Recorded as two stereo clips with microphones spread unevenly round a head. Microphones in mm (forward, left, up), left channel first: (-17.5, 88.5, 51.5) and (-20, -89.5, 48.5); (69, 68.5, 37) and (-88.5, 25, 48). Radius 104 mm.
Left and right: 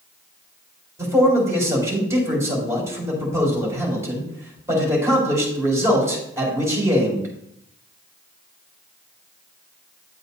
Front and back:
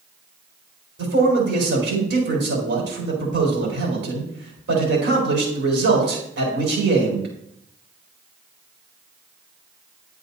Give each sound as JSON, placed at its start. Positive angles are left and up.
{"t": 1.0, "sound": "a man speaking", "azimuth_deg": -165, "distance_m": 5.0}